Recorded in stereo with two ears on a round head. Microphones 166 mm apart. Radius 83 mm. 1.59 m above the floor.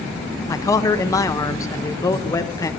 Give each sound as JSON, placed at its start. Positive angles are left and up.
{"t": 0.5, "sound": "a man speaking", "side_deg": 20, "distance_m": 0.7}